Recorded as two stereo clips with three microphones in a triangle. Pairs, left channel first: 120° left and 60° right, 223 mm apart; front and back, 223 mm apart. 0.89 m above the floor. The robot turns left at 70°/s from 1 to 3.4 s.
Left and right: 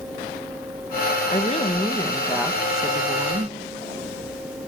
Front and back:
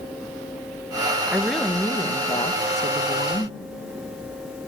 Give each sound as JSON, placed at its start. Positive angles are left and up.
{"t": 1.3, "sound": "a woman speaking", "azimuth_deg": 105, "distance_m": 0.9}